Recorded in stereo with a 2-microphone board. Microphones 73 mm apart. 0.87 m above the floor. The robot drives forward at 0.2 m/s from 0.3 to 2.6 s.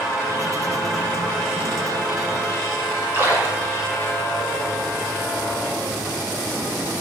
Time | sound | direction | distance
3.1 | a splash | 30° right (ahead or behind) | 1.8 m